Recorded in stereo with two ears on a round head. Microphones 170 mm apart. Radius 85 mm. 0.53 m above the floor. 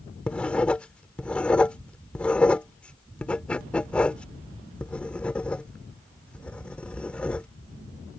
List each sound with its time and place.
0.3 s writing: 5° left (ahead or behind)